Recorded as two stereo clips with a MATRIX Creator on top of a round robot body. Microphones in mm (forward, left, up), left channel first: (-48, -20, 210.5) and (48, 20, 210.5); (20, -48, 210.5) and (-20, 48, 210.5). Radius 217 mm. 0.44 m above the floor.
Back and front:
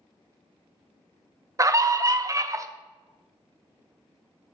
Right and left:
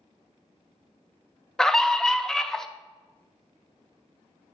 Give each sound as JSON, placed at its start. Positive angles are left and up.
{"t": 1.6, "sound": "a scream", "azimuth_deg": 10, "distance_m": 0.7}